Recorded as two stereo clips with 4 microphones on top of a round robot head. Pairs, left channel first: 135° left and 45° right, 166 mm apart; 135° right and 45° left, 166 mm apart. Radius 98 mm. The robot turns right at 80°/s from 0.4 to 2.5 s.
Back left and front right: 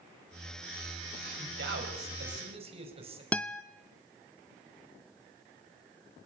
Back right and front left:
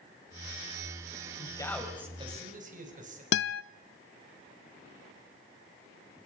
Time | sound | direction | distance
1.4 | a man speaking | 80° right | 4.5 m
3.3 | a guitar | 145° right | 0.6 m